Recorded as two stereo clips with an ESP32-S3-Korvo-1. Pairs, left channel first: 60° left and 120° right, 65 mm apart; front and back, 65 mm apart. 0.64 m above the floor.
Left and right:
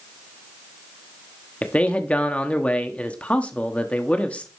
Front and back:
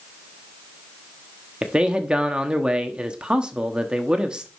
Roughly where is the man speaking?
Behind left.